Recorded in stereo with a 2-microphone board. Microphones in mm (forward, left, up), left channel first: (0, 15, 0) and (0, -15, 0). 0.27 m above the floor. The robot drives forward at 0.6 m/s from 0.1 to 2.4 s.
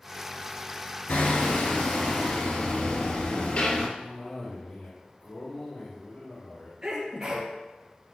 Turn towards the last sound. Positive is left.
turn(degrees=-35)  # may be behind; listen again after turning